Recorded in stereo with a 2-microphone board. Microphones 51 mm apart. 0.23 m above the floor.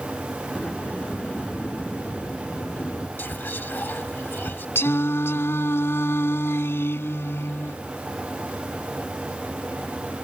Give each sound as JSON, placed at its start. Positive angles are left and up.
{"t": 0.6, "sound": "a sliding door", "side_deg": 35}
{"t": 3.2, "sound": "whispering", "side_deg": 40}
{"t": 4.8, "sound": "singing", "side_deg": 55}